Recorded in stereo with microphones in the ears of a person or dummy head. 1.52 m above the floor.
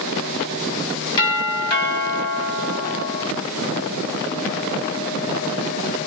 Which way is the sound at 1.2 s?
25° left (ahead or behind).